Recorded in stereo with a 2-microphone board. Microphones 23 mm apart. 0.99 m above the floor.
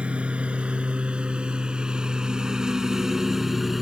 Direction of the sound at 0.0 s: 60° right (ahead or behind).